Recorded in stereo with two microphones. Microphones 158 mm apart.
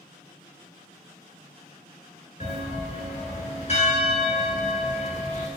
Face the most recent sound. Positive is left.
turn(degrees=45)  # may be behind; listen again after turning